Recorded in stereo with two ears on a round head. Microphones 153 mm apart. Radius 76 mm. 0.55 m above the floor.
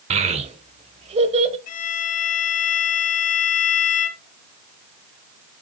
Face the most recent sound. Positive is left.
turn(degrees=45)  # may be behind; listen again after turning